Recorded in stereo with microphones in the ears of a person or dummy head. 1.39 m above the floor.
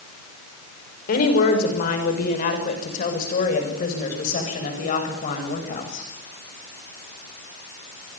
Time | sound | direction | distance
1.1 | a woman speaking | 60° left (ahead or behind) | 6 m